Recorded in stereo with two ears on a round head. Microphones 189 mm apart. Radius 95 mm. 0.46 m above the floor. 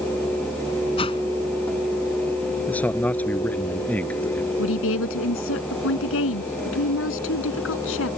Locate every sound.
1.0 s a whoosh: 25° left (ahead or behind)
2.7 s a man speaking: 10° left (ahead or behind)
4.6 s a woman speaking: 70° left (ahead or behind)